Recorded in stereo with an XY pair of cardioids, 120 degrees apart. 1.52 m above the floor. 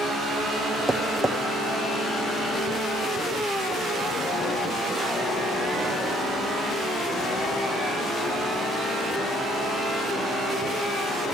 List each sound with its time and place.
0.9 s tapping: 5° right, 1.5 m